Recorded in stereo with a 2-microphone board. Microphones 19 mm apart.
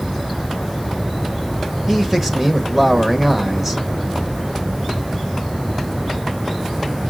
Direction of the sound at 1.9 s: 20° right (ahead or behind).